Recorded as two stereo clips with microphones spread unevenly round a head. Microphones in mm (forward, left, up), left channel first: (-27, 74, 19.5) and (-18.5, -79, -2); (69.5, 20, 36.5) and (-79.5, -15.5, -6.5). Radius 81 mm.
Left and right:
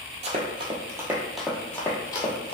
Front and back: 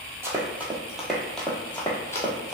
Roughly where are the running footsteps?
Right.